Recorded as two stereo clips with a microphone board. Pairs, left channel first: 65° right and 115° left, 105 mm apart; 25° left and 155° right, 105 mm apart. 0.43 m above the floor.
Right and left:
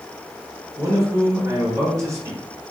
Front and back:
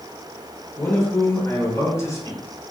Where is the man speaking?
70° left, 1.0 m.